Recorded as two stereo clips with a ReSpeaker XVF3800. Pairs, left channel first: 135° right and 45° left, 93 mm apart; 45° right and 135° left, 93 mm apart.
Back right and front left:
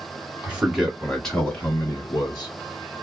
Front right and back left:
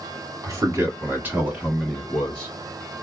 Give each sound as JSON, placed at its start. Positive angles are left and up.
{"t": 0.4, "sound": "a man speaking", "azimuth_deg": 110, "distance_m": 1.5}